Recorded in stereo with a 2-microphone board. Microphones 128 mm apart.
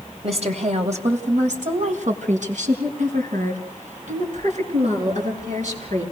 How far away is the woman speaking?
About 3 m.